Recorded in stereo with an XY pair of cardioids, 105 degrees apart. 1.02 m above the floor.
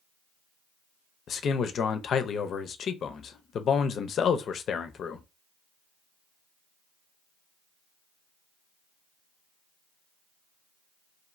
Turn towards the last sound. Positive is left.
turn(degrees=60)